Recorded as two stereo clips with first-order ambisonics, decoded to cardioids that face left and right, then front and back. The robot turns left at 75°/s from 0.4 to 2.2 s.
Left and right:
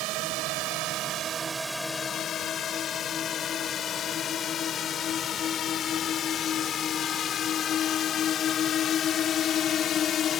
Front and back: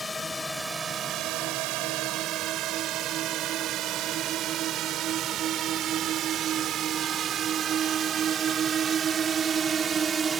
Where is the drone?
80° right; by 10.4 s 120° left.